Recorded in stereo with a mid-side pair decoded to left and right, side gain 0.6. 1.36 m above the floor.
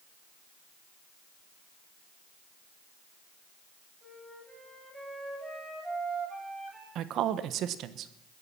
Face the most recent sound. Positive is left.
turn(degrees=-60)